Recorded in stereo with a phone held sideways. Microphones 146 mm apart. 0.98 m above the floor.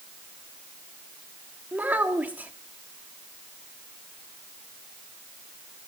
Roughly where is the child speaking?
Centre.